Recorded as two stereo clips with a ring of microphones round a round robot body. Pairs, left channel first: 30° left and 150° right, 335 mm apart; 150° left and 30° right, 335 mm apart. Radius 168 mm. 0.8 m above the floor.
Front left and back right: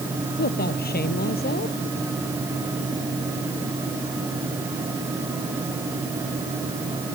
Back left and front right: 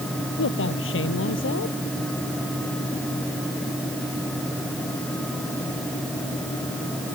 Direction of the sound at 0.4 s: 95° left.